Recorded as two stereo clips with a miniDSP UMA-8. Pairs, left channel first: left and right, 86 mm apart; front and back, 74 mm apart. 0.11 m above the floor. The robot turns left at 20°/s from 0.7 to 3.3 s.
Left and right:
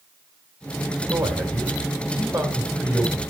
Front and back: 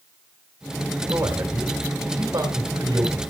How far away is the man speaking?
About 3 m.